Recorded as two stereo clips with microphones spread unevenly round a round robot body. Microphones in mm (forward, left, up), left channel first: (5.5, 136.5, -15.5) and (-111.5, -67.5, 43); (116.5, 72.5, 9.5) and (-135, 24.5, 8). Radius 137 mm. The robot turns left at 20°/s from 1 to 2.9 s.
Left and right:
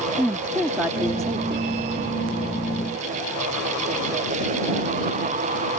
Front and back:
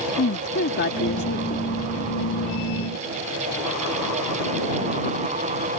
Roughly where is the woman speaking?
Ahead right.